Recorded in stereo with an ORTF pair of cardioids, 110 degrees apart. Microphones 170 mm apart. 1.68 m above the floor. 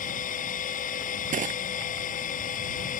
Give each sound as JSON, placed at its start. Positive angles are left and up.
{"t": 0.0, "sound": "a machine running", "azimuth_deg": 50}
{"t": 1.3, "sound": "crushing", "azimuth_deg": -50}